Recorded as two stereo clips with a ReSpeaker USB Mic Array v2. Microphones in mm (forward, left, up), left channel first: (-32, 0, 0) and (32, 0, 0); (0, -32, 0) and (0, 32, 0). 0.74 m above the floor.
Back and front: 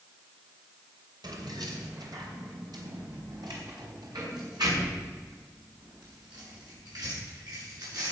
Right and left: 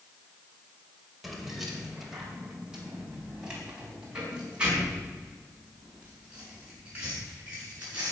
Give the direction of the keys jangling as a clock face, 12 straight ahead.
12 o'clock.